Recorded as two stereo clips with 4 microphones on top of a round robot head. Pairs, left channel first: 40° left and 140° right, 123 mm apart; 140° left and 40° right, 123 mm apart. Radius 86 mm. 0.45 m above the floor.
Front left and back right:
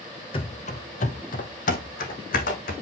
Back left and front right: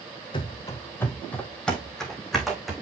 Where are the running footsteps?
85° left, 0.6 m; by 2.7 s 50° left, 2.0 m.